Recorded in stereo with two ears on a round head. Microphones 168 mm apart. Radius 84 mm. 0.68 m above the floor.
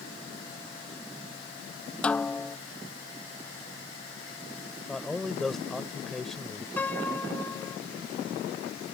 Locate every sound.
2.0 s a snare drum: 5° left (ahead or behind)
4.9 s a man speaking: centre (ahead or behind)
6.8 s a piano: 10° left (ahead or behind)